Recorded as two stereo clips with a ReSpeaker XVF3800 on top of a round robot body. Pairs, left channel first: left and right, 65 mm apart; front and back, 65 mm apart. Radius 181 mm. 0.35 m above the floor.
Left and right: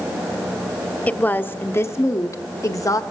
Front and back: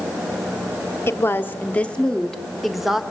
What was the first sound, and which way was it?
A woman speaking, 30° left.